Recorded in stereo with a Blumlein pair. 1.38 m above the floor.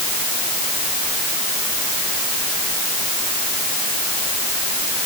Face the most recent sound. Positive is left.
No sound to turn to.